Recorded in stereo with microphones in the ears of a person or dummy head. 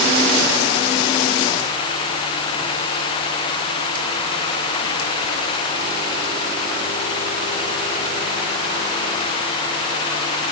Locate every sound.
Only background noise.